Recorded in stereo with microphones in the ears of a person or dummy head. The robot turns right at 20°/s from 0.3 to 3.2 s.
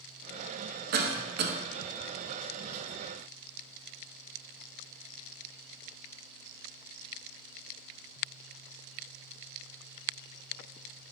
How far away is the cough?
About 0.5 m.